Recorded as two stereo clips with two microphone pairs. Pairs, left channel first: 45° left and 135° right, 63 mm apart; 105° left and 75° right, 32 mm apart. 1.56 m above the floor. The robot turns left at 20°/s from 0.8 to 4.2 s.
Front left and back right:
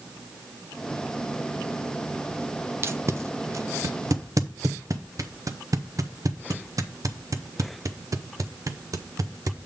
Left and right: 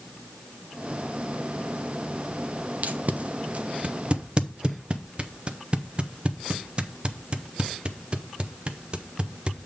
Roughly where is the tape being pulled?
Right.